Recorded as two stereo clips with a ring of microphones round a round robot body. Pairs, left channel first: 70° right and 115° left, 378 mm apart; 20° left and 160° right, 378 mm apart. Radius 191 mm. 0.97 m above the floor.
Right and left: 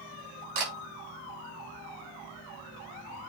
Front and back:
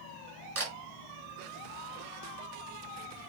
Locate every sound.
0.6 s a camera shutter: 140° left, 4.5 m